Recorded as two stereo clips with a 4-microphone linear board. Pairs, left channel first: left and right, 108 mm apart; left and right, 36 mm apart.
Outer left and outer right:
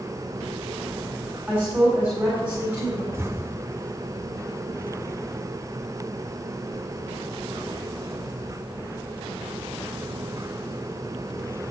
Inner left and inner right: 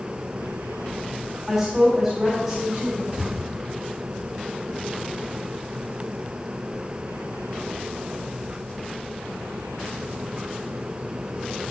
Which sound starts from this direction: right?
An explosion, at 3.1 s.